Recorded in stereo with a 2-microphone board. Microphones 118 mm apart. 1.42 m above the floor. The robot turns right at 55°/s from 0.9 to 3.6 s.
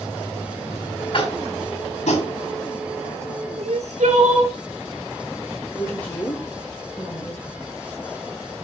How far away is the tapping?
About 2.5 m.